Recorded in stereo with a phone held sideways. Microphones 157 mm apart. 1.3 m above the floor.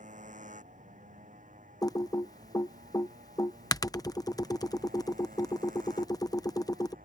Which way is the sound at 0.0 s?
50° right (ahead or behind).